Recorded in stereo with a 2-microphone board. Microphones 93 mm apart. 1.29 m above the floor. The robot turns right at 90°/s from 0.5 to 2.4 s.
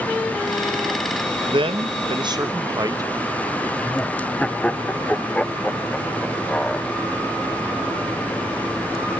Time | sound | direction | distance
1.5 | a man speaking | 55° right (ahead or behind) | 1.0 m
3.8 | laughter | 10° left (ahead or behind) | 0.5 m